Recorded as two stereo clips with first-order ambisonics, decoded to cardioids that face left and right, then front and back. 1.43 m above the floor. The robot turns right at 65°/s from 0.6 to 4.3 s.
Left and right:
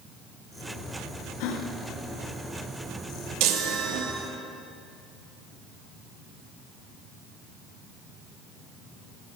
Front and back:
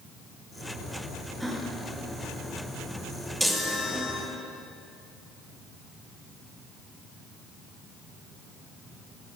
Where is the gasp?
90° left, 1.2 m; by 4.2 s 90° right, 1.2 m.